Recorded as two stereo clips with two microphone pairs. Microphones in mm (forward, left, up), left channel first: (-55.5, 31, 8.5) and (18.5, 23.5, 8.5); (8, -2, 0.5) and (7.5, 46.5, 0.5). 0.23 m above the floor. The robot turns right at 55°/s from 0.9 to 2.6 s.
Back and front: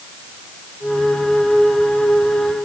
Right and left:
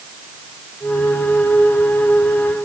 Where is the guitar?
I don't hear a guitar.